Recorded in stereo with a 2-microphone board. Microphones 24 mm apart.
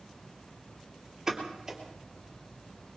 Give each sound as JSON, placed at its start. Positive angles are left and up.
{"t": 1.3, "sound": "a pop", "side_deg": -20, "distance_m": 3.0}